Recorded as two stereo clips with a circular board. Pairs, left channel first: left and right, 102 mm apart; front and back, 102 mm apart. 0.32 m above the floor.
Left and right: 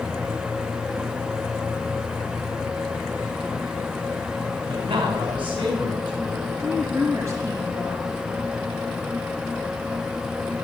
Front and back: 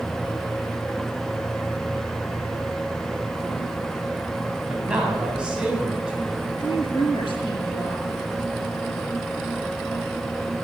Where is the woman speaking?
30° right, 5.5 m.